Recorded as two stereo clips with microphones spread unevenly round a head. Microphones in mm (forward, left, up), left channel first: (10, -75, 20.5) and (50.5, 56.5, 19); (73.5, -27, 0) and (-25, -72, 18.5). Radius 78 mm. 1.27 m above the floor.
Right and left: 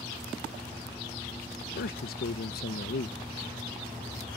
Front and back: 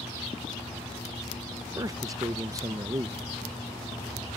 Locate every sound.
1.8 s a man speaking: 95° right